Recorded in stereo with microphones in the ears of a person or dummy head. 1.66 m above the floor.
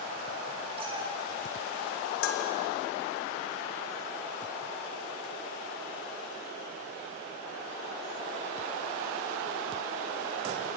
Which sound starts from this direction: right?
A cat meowing, at 0.8 s.